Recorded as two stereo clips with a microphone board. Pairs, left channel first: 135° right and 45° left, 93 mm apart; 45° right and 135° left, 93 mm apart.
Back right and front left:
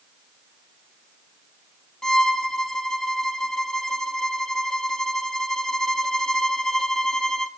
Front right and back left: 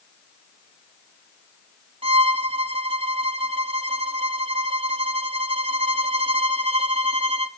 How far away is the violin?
About 1.5 m.